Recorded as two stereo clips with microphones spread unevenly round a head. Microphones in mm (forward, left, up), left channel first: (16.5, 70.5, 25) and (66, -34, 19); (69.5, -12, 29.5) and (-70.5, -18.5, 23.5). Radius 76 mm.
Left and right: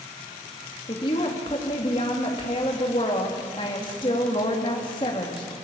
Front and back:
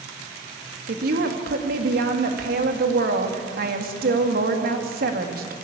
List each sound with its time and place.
0.9 s a woman speaking: 175° left, 2.5 m